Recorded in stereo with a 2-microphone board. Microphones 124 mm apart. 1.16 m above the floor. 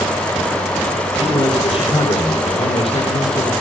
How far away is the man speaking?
About 6.5 m.